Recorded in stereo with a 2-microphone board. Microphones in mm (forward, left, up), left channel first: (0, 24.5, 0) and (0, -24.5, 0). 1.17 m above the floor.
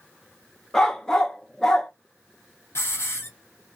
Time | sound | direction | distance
0.7 | a dog barking | 10° left (ahead or behind) | 0.5 m
2.8 | a hiss | 60° left (ahead or behind) | 0.8 m